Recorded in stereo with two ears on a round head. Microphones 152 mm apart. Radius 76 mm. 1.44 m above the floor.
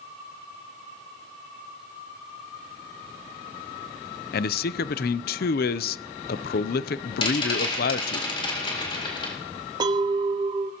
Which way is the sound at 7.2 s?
30° left (ahead or behind).